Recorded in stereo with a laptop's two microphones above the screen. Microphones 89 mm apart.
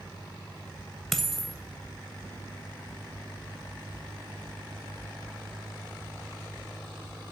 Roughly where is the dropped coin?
Centre.